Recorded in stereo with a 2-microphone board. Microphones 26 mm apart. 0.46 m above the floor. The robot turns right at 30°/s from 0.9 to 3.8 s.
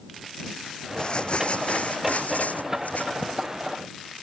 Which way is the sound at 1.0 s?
35° left.